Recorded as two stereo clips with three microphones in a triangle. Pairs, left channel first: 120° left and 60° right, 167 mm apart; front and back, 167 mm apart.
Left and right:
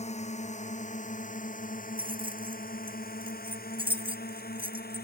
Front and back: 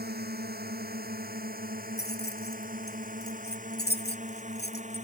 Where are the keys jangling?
Straight ahead.